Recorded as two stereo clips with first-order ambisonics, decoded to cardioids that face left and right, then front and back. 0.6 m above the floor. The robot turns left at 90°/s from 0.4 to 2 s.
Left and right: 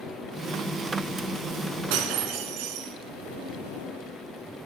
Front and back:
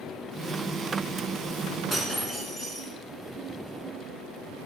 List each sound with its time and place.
1.9 s breaking glass: 80° right, 1.2 m; by 2.9 s 85° right, 1.2 m